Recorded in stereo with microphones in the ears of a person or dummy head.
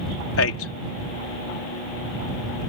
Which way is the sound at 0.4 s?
80° left.